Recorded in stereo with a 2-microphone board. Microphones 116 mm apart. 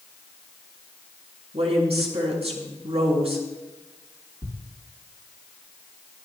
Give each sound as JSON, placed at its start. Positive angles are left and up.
{"t": 1.5, "sound": "a woman speaking", "side_deg": -60, "distance_m": 5.5}
{"t": 4.4, "sound": "a thud", "side_deg": -35, "distance_m": 3.0}